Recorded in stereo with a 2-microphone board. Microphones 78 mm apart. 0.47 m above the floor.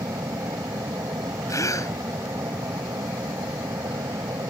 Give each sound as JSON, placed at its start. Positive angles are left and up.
{"t": 0.0, "sound": "an aircraft", "side_deg": -55}
{"t": 1.5, "sound": "a gasp", "side_deg": 45}